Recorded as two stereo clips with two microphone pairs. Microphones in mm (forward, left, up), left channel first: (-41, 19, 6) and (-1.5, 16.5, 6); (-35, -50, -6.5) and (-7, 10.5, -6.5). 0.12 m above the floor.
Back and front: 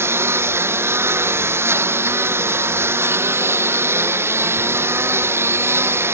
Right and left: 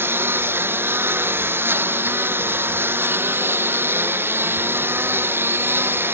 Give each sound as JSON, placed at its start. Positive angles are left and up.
{"t": 0.0, "sound": "a lawn mower", "azimuth_deg": 10}